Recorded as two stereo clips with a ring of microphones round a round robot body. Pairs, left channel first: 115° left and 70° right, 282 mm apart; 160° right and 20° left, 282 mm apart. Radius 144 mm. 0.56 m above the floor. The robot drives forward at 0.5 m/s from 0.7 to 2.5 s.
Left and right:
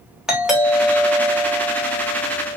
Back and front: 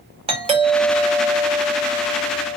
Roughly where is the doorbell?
Ahead.